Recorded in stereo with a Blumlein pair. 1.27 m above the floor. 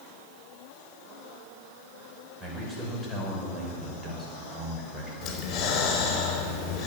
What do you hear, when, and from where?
2.4 s a man speaking: 5° right, 6 m
5.2 s breathing: 30° left, 4.5 m